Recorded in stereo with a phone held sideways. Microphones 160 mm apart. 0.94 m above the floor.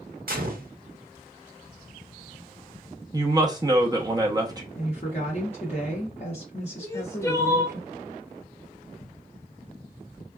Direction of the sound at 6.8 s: 15° left (ahead or behind).